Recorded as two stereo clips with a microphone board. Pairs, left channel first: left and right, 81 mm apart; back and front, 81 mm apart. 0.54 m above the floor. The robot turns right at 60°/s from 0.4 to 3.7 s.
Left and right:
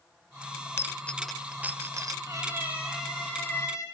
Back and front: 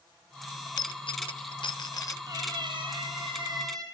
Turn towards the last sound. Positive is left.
turn(degrees=40)